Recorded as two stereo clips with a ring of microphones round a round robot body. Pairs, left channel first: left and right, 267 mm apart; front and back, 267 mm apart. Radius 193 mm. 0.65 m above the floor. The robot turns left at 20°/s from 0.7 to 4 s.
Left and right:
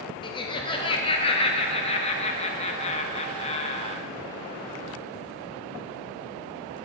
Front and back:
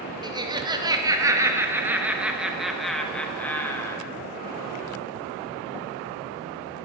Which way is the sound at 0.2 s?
130° left.